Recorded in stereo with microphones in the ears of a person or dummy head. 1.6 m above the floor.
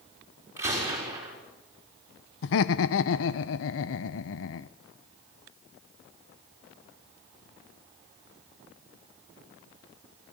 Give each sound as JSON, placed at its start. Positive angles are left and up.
{"t": 0.6, "sound": "a gunshot", "side_deg": -15, "distance_m": 6.0}
{"t": 2.4, "sound": "laughter", "side_deg": 75, "distance_m": 0.9}